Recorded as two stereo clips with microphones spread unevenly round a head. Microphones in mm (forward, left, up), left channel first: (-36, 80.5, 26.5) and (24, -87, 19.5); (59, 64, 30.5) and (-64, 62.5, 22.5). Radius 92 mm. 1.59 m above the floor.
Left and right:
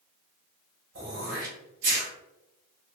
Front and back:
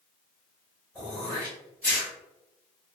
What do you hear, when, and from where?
0.9 s throat clearing: 80° right, 1.2 m